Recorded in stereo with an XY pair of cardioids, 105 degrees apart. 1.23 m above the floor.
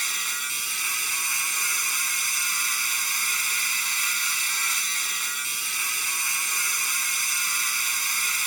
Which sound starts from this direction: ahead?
A machine running, at 0.0 s.